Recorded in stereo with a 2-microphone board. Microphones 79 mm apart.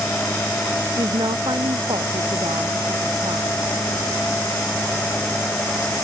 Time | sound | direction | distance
1.0 | a woman speaking | 80° right | ?